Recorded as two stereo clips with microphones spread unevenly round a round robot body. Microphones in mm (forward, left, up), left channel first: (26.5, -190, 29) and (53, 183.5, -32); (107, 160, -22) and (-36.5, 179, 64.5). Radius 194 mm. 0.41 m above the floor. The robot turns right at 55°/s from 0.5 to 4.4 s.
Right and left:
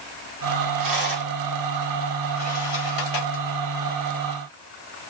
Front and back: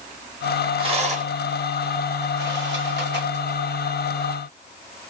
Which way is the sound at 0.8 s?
100° left.